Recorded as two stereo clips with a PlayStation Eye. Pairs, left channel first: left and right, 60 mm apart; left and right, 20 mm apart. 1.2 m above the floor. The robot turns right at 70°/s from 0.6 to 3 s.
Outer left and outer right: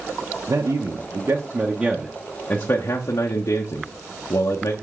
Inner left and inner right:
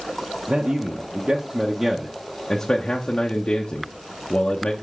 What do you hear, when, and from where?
0.5 s a man speaking: 95° right, 0.7 m; by 4.7 s 75° left, 0.7 m